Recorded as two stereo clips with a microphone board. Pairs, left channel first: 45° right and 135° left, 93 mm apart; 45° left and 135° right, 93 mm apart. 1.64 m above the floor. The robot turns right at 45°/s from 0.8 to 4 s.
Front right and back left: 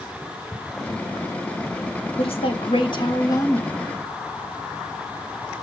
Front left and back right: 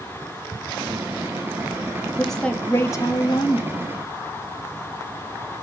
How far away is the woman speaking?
About 1.9 m.